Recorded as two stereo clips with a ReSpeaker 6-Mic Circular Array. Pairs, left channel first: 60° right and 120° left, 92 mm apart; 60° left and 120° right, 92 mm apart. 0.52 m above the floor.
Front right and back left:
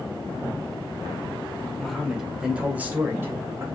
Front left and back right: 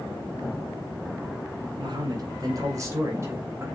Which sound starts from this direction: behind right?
A man speaking, at 1.8 s.